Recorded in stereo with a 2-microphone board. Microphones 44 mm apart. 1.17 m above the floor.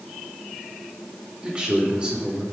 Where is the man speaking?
25° right (ahead or behind), 3 m.